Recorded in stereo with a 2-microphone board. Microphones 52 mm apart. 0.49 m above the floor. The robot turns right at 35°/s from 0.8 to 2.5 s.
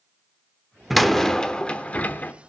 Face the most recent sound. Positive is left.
turn(degrees=55)